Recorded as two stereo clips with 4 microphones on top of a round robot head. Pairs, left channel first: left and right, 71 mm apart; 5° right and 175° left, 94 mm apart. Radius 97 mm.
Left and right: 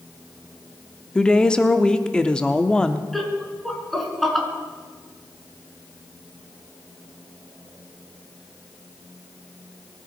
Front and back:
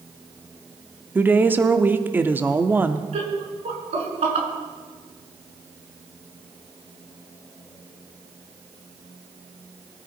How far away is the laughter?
About 5.5 m.